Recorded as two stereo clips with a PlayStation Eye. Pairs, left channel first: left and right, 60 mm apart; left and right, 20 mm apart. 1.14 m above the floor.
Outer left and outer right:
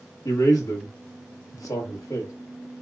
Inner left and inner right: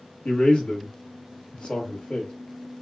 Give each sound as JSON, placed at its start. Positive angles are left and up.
{"t": 0.2, "sound": "a man speaking", "side_deg": 75, "distance_m": 1.4}